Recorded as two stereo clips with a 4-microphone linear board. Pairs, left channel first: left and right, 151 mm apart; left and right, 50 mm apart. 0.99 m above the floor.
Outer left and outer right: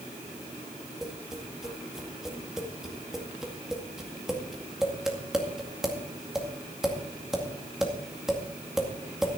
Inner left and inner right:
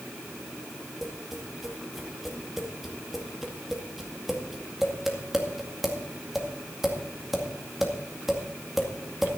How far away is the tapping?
About 2 m.